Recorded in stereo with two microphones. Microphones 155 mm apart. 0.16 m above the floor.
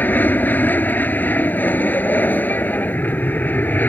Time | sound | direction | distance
0.0 | an aircraft | 10° left (ahead or behind) | ?